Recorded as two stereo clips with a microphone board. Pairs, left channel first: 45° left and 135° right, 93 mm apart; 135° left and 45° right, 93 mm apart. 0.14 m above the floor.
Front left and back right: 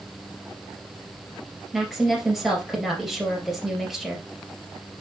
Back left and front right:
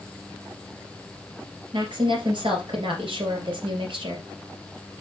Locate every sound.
1.7 s a woman speaking: 45° right, 2.5 m